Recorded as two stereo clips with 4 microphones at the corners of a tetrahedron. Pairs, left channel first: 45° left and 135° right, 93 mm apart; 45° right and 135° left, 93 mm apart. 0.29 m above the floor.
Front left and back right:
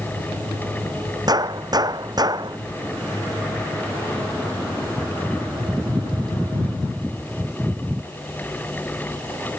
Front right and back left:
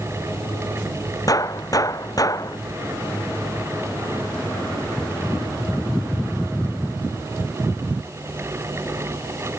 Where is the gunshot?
90° right.